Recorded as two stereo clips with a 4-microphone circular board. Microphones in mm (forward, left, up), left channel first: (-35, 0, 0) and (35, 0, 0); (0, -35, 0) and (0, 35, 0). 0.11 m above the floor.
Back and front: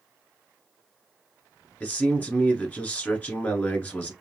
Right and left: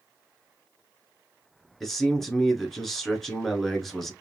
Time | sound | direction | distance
1.8 | a man speaking | 170° right | 1.2 m